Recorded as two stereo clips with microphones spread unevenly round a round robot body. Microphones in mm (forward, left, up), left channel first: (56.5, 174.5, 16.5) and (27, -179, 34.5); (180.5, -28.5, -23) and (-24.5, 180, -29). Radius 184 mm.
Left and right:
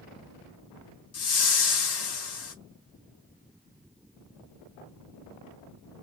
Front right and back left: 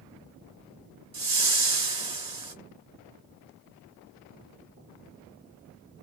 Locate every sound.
1.1 s a whoosh: 75° left, 1.2 m